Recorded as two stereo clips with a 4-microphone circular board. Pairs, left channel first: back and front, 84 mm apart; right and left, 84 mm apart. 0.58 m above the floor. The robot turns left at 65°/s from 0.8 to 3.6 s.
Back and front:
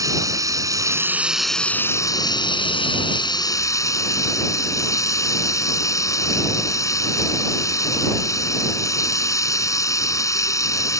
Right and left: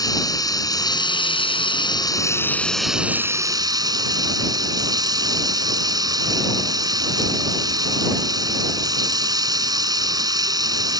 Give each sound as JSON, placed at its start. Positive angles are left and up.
{"t": 0.0, "sound": "running water", "azimuth_deg": -50}